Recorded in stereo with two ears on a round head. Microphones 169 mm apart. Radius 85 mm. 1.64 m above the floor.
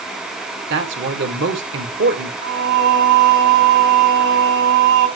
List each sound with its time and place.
0.7 s a man speaking: 70° right (ahead or behind), 1.8 m
2.4 s singing: 65° right (ahead or behind), 3 m